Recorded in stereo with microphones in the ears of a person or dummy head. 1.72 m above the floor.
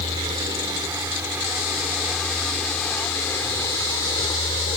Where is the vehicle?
25° right (ahead or behind); by 4.8 s 30° left (ahead or behind).